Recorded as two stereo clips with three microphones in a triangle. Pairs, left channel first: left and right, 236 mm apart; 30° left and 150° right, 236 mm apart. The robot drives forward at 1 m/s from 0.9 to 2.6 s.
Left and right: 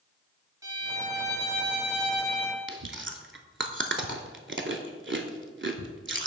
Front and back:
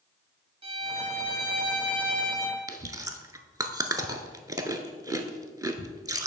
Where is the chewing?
75° right, 0.6 m.